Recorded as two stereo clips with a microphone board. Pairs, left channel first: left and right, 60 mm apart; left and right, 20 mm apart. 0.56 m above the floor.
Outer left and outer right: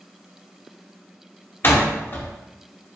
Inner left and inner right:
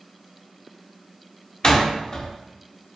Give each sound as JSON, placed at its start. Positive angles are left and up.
{"t": 1.6, "sound": "a door slam", "side_deg": 40, "distance_m": 1.0}